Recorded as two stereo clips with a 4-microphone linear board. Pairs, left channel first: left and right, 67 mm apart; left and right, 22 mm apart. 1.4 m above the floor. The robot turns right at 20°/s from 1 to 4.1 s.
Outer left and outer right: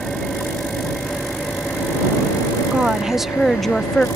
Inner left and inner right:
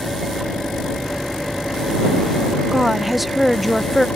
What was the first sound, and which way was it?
An engine running, 10° left.